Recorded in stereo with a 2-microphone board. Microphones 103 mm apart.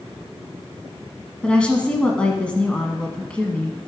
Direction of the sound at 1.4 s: 10° left (ahead or behind).